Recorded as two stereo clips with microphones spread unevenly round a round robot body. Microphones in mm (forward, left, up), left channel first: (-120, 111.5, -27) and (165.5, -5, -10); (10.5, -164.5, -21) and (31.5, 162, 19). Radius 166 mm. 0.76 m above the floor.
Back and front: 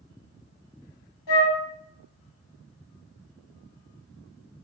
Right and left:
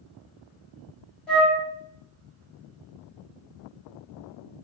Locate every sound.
1.3 s a flute: straight behind, 1.5 m